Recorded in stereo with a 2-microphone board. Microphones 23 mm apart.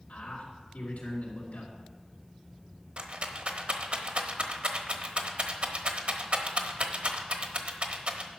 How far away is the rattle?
About 1.1 m.